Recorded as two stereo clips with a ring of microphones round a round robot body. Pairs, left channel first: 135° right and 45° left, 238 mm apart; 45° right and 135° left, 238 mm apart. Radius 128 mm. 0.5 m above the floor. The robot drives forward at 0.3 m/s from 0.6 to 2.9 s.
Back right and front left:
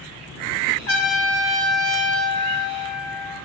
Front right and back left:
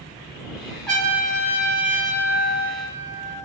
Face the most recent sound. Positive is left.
turn(degrees=-145)